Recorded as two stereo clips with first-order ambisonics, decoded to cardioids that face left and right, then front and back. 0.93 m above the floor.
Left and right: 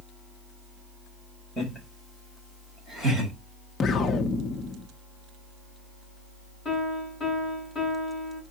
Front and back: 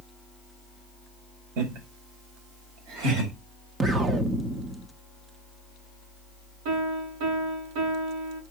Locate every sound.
1.6 s laughter: 175° left, 4.5 m; by 3.3 s straight behind, 6 m
3.8 s an explosion: 130° left, 0.9 m
6.7 s a piano: 170° left, 8.5 m